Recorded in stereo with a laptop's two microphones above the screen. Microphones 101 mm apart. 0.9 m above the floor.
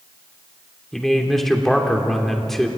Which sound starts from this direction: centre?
A man speaking, at 0.9 s.